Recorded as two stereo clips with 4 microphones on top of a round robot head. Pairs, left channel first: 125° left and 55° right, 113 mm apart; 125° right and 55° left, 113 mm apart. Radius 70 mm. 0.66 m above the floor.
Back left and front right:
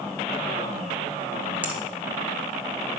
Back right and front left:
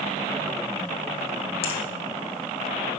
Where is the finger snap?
130° right, 1.3 m.